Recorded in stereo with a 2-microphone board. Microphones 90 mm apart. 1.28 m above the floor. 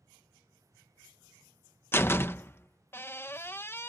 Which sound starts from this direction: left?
A door slam, at 1.9 s.